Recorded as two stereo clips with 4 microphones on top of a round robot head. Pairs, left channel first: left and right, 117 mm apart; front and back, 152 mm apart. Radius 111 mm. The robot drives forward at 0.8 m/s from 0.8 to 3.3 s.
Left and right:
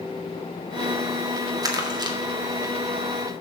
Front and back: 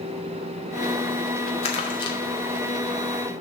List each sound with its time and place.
1.6 s crumpling: 40° right, 1.8 m; by 2.2 s 55° right, 1.6 m